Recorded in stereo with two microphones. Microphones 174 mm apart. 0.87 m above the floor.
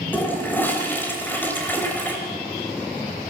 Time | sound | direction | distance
0.1 | a toilet flushing | 10° left (ahead or behind) | 3 m